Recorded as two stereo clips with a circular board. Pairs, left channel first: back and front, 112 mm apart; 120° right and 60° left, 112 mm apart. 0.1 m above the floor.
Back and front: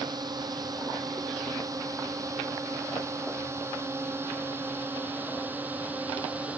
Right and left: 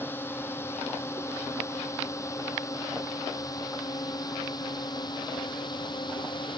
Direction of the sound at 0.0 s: 50° right.